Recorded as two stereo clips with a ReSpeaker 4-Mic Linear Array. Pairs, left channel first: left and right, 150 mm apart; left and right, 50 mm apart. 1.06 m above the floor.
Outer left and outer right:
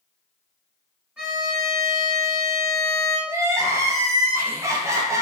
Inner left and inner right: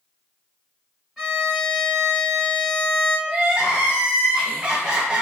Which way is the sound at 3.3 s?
20° right (ahead or behind).